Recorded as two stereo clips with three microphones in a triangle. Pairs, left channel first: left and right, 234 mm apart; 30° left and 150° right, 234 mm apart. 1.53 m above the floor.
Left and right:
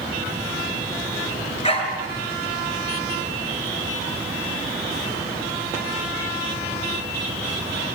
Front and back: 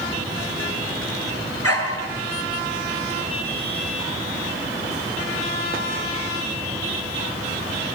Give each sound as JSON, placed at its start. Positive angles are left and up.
{"t": 1.6, "sound": "a dog barking", "azimuth_deg": 25, "distance_m": 5.0}